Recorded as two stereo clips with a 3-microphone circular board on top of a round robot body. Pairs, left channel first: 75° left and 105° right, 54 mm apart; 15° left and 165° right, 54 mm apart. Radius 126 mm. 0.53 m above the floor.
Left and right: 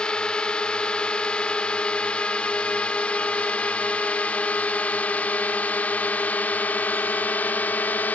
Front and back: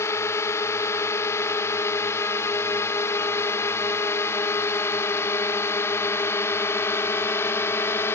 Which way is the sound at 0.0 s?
5° left.